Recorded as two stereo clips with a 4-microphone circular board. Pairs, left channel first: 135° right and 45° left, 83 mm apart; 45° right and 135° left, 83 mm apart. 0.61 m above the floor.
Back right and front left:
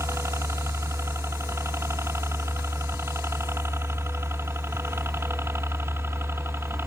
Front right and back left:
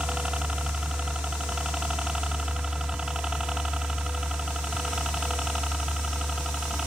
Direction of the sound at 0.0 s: 65° left.